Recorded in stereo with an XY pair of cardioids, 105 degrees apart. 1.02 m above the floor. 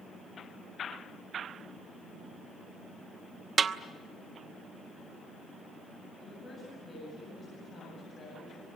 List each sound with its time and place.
3.6 s a snare drum: 45° right, 0.9 m
6.2 s a woman speaking: 40° left, 8 m